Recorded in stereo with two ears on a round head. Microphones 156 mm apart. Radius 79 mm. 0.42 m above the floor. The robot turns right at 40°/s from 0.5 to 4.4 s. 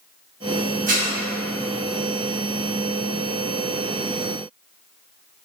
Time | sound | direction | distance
0.9 | dishes clattering | 50° right (ahead or behind) | 1.0 m